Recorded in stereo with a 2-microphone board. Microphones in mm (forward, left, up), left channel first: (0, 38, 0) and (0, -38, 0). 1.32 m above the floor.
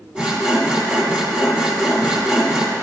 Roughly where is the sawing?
Centre.